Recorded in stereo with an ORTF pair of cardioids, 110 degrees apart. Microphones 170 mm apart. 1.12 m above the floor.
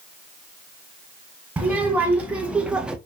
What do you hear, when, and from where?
1.6 s a child speaking: 10° right, 1.6 m; by 3.0 s 5° right, 0.7 m